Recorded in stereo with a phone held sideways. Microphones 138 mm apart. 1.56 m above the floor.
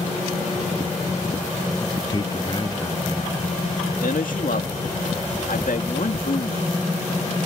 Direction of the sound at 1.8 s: 30° left (ahead or behind).